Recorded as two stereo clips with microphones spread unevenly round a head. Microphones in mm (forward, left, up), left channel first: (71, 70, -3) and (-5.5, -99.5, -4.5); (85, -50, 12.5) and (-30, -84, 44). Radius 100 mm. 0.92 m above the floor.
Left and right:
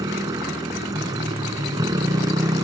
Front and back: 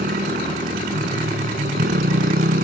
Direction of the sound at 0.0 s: 175° left.